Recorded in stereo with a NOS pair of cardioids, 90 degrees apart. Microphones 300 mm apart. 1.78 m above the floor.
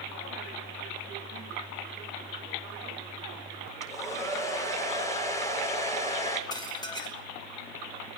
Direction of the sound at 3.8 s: 10° left.